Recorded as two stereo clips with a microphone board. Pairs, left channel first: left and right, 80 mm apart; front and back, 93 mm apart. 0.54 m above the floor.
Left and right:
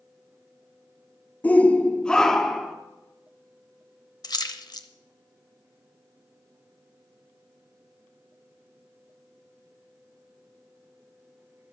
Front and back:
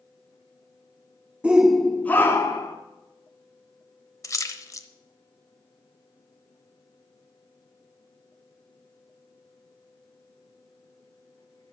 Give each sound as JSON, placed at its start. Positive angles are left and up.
{"t": 1.4, "sound": "a shout", "azimuth_deg": 120, "distance_m": 0.7}
{"t": 4.2, "sound": "a splash", "azimuth_deg": 55, "distance_m": 0.8}